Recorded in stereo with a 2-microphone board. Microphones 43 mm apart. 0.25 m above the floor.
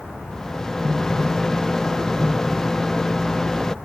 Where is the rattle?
15° left (ahead or behind).